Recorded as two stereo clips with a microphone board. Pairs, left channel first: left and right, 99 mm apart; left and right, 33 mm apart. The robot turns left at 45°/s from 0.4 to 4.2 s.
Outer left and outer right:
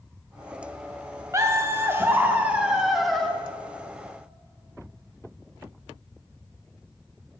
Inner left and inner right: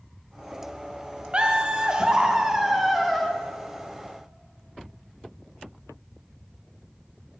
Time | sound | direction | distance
1.3 | laughter | 30° right (ahead or behind) | 0.7 m